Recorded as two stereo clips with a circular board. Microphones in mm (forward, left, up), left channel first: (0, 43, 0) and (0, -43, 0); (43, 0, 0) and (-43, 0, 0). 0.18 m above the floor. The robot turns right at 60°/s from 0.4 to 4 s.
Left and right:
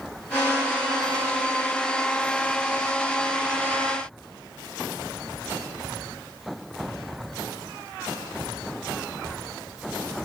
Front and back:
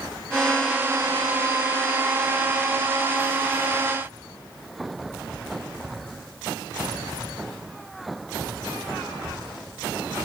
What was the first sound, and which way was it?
Only background noise.